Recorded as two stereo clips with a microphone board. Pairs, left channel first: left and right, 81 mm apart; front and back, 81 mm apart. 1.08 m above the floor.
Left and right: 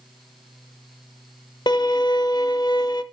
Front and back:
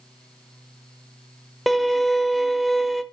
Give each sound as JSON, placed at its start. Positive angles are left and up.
{"t": 1.7, "sound": "a violin", "azimuth_deg": 90, "distance_m": 0.9}